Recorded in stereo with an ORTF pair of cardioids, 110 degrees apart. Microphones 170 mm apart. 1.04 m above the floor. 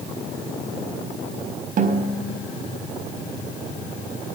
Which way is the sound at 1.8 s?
50° right.